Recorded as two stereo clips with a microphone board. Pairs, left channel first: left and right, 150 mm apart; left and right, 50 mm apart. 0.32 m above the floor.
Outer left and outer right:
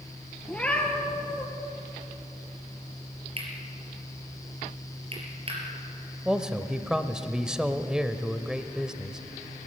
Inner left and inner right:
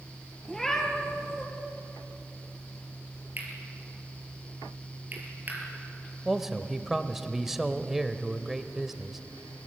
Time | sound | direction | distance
0.5 | a cat meowing | 10° left (ahead or behind) | 3 m
3.4 | cutlery clinking | 40° right (ahead or behind) | 4.5 m
6.2 | a man speaking | 5° right (ahead or behind) | 0.9 m